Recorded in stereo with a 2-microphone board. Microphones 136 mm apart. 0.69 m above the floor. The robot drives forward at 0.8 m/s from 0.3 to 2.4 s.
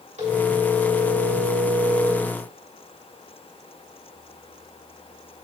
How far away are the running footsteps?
I don't hear running footsteps.